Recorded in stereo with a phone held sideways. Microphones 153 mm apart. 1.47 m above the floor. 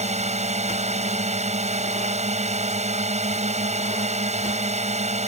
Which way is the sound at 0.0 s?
50° right (ahead or behind).